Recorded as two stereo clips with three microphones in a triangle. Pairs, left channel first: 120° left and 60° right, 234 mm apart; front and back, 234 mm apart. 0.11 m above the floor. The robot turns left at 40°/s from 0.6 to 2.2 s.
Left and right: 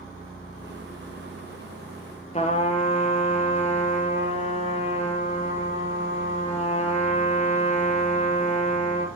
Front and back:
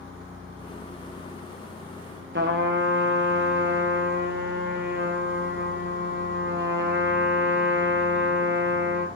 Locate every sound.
2.3 s a trumpet: 175° left, 2.5 m